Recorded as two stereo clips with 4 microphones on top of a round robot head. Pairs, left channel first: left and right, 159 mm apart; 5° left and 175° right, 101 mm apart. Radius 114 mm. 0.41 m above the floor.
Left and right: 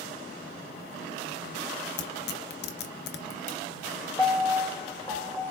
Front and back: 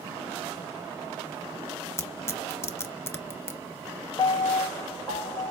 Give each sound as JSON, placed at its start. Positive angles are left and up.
{"t": 2.0, "sound": "tearing paper", "azimuth_deg": 70, "distance_m": 0.6}
{"t": 4.2, "sound": "a piano", "azimuth_deg": 30, "distance_m": 1.7}